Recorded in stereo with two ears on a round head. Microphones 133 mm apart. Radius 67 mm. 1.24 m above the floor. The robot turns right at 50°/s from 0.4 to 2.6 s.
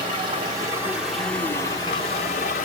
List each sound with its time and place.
0.0 s running water: 35° right, 1.2 m; by 2.6 s 75° left, 1.2 m